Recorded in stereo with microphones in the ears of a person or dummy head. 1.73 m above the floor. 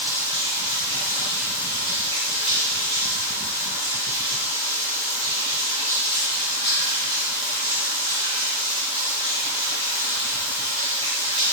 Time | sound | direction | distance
0.0 | running water | 35° right (ahead or behind) | 3.5 m